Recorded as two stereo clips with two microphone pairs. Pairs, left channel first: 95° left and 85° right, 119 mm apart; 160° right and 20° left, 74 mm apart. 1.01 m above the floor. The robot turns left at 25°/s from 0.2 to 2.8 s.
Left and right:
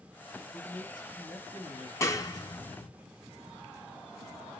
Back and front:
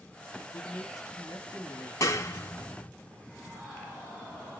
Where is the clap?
160° left, 1.0 m; by 2.9 s 140° left, 1.0 m.